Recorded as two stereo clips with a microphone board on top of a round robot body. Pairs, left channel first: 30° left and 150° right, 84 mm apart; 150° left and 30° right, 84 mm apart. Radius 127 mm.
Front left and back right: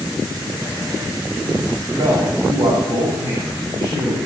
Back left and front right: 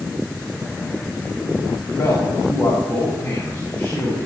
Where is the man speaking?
165° right, 4.5 m.